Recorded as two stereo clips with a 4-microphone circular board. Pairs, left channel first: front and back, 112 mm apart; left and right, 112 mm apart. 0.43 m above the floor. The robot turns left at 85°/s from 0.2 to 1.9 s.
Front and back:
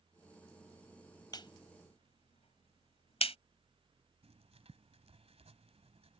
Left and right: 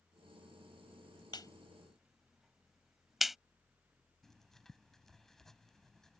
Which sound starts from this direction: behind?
Writing, at 4.2 s.